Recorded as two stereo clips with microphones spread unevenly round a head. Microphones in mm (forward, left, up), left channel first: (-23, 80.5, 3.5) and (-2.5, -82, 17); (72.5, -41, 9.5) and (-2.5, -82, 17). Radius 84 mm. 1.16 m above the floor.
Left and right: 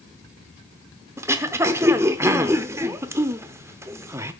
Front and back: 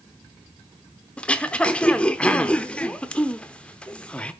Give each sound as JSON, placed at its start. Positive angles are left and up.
{"t": 1.2, "sound": "throat clearing", "azimuth_deg": -45, "distance_m": 0.8}